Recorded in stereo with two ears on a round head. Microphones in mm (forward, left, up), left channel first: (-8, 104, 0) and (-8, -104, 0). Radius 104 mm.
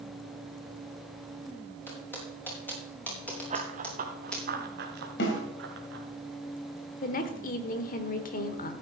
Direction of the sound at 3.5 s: 30° right (ahead or behind).